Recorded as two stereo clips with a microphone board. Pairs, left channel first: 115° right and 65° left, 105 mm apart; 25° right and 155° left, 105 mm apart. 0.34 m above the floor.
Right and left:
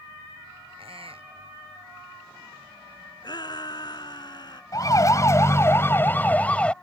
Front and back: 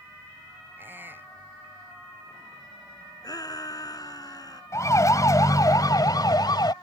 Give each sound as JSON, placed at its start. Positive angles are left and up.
{"t": 0.8, "sound": "a squeak", "azimuth_deg": 90}
{"t": 3.2, "sound": "a shout", "azimuth_deg": -70}
{"t": 4.7, "sound": "a siren", "azimuth_deg": -70}